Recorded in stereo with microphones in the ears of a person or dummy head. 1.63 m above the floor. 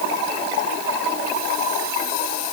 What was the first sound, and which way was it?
Only background noise.